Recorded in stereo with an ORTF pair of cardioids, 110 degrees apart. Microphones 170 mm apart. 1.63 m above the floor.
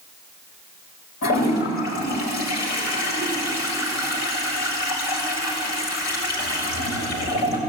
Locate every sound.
1.2 s a toilet flushing: 70° left, 7.5 m